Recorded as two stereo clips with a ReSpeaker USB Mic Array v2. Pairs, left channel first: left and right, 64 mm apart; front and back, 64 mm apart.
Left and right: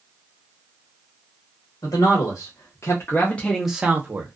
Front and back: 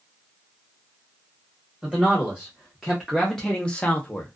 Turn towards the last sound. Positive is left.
turn(degrees=-60)